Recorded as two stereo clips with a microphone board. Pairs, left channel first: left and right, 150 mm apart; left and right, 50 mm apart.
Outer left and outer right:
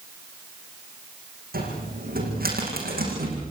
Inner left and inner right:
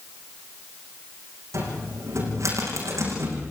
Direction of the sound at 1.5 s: 80° right.